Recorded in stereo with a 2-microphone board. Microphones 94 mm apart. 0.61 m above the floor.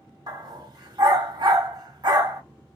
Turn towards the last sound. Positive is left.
turn(degrees=-50)  # may be behind; listen again after turning